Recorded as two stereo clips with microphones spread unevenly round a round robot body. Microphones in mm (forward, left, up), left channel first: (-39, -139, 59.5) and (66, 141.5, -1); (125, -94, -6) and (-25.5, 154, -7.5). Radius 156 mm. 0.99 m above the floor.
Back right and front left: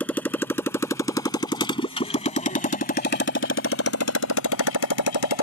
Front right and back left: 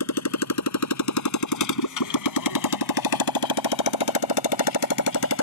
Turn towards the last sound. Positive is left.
turn(degrees=-105)